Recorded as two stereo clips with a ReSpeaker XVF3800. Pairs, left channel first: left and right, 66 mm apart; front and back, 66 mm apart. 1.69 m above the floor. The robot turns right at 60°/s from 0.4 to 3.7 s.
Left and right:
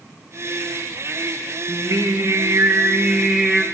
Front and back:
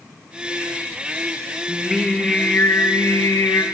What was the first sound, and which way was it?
Singing, 110° right.